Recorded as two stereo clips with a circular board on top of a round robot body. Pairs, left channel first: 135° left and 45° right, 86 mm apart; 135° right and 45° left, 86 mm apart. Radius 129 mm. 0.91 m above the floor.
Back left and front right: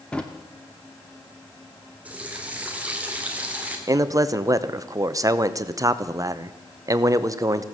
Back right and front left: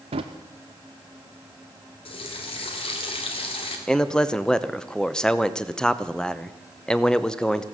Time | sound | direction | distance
0.1 | a drawer | 55° left | 0.7 m
2.0 | a running tap | 120° right | 2 m
3.9 | a man speaking | 60° right | 1.0 m